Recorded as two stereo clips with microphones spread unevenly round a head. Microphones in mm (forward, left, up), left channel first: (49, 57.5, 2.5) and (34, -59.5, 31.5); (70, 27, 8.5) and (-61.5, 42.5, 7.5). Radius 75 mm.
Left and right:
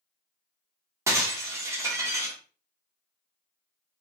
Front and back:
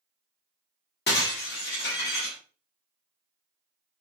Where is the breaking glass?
30° right, 1.4 m.